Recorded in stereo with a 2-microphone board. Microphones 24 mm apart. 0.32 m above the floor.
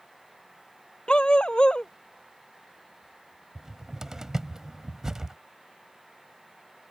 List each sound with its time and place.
1.1 s a dog barking: 35° left (ahead or behind)
3.5 s a cupboard door: 20° right (ahead or behind)